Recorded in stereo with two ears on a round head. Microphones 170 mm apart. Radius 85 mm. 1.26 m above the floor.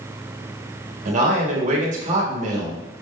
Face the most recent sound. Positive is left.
turn(degrees=-40)  # may be behind; listen again after turning